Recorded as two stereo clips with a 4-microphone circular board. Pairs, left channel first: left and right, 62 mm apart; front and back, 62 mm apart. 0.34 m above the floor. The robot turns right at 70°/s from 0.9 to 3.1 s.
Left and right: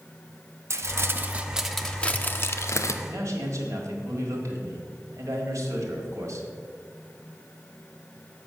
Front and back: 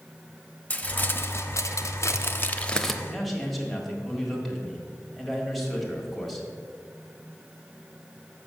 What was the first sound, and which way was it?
Crumpling, 55° right.